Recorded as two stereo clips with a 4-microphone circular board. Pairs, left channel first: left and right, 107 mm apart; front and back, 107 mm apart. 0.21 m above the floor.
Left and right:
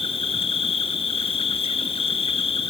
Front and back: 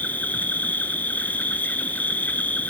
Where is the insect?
75° left, 1.1 m.